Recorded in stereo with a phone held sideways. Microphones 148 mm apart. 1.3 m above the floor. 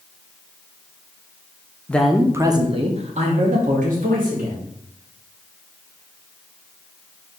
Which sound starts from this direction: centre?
A man speaking, at 1.9 s.